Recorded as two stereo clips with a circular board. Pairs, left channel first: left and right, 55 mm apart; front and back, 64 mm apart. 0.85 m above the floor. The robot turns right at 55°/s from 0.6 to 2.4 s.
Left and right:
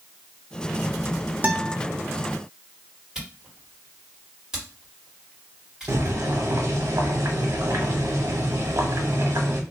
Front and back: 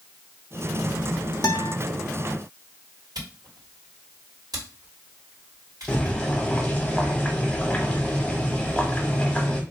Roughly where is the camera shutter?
Behind.